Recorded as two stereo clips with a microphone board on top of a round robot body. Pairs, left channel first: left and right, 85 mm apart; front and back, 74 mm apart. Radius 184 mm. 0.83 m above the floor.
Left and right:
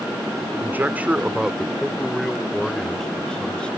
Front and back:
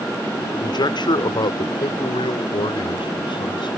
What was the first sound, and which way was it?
A man speaking, 25° right.